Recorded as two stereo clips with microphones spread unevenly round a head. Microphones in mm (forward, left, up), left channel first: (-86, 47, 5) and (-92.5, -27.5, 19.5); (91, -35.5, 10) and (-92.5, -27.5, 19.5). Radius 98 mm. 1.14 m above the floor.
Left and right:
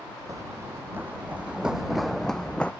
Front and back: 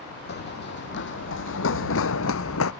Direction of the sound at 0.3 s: 35° right.